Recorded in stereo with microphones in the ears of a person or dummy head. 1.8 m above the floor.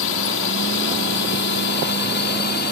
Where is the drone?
70° left (ahead or behind); by 2.7 s 55° left (ahead or behind).